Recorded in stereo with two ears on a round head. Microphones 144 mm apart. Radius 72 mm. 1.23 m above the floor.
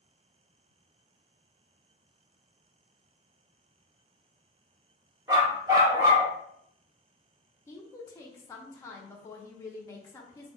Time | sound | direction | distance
5.3 | a dog barking | 25° right (ahead or behind) | 0.7 m
7.7 | a woman speaking | 20° left (ahead or behind) | 0.5 m